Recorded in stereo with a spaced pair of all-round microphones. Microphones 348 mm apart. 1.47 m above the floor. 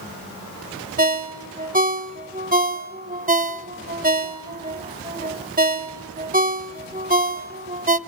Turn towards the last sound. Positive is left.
turn(degrees=-25)  # may be behind; listen again after turning